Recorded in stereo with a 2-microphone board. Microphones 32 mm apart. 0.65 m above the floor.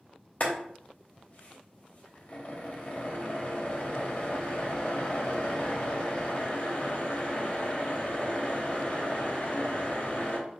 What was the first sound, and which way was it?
Boiling, 50° left (ahead or behind).